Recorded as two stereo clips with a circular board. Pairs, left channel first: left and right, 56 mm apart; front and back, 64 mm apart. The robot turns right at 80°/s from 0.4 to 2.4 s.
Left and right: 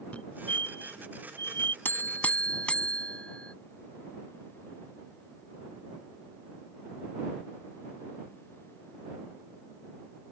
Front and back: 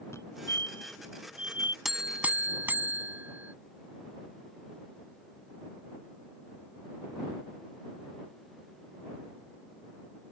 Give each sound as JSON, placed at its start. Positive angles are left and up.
{"t": 0.1, "sound": "a fire alarm", "azimuth_deg": 30}
{"t": 1.9, "sound": "a buzzer", "azimuth_deg": 100}